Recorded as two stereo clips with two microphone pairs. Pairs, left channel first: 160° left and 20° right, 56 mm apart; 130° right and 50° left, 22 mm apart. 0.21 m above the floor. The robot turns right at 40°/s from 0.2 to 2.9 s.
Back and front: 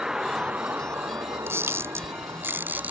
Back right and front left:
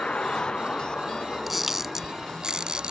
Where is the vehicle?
100° right; by 2.9 s 10° left.